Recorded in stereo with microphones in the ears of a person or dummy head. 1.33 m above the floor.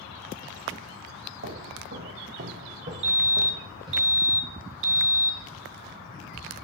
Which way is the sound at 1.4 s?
60° right (ahead or behind).